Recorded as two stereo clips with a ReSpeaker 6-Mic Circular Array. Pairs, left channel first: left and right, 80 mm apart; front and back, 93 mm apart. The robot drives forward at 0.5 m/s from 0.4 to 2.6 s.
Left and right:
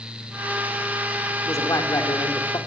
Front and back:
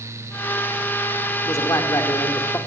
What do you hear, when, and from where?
1.4 s a man speaking: 45° left, 2.5 m; by 2.6 s 60° left, 2.0 m